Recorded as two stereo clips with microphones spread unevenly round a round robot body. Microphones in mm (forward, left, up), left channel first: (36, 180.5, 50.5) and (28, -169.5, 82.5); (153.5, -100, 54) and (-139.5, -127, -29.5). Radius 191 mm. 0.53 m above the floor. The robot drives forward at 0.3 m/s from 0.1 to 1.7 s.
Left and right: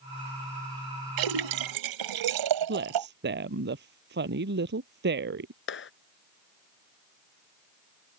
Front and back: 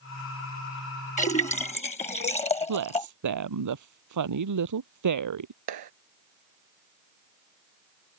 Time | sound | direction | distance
1.2 | a splash | 65° right | ?
2.7 | a woman speaking | 155° right | ?
5.7 | a clap | 150° left | ?